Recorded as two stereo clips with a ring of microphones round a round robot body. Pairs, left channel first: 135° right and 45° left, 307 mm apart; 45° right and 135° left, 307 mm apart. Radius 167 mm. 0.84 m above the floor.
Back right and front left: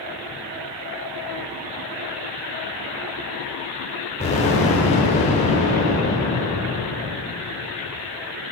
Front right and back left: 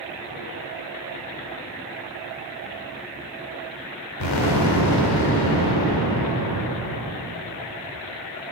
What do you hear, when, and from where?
4.2 s an explosion: 65° right, 1.8 m